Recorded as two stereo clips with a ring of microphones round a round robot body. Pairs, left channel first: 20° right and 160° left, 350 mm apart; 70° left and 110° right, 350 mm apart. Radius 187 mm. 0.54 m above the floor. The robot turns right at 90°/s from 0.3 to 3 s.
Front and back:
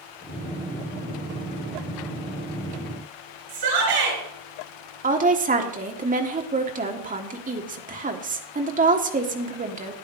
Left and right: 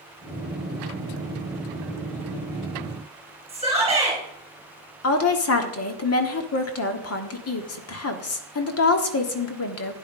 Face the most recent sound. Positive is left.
turn(degrees=95)